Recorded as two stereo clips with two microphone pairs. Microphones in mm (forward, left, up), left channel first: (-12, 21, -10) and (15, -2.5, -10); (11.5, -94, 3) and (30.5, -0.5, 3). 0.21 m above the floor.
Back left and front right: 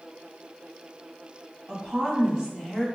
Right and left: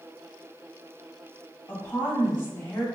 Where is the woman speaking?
80° right, 1.1 m.